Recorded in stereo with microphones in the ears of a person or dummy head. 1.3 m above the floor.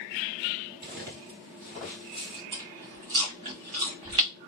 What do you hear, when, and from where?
0.8 s footsteps: 25° right (ahead or behind), 1.4 m; by 2.4 s 10° left (ahead or behind), 1.3 m
2.5 s chewing: 25° right (ahead or behind), 0.8 m